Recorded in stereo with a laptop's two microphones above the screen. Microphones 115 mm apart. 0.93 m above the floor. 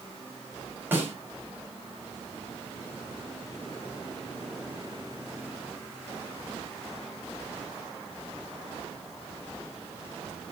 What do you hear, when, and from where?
0.9 s a snare drum: 15° right (ahead or behind), 5 m